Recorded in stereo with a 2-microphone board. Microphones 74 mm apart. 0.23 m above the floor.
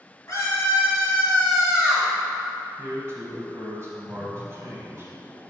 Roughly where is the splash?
Centre.